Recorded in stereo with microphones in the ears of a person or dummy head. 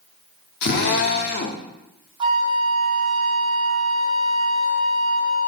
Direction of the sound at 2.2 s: 30° right (ahead or behind).